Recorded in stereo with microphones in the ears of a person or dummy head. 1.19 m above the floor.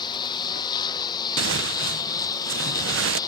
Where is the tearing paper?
65° right (ahead or behind).